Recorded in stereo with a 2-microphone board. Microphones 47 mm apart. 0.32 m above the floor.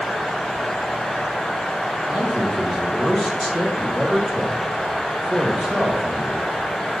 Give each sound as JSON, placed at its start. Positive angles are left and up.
{"t": 2.1, "sound": "a man speaking", "side_deg": -5, "distance_m": 1.7}